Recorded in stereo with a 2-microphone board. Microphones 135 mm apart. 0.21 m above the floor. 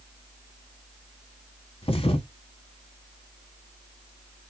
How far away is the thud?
About 0.8 m.